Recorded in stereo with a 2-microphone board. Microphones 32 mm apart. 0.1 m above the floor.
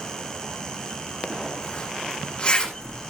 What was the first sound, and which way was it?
A zipper, 30° left (ahead or behind).